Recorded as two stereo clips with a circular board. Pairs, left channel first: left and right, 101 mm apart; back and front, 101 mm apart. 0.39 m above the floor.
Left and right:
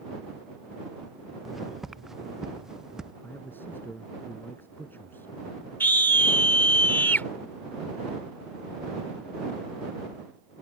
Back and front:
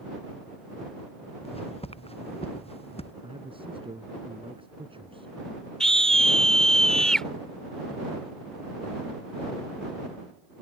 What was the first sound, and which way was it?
Footsteps, straight behind.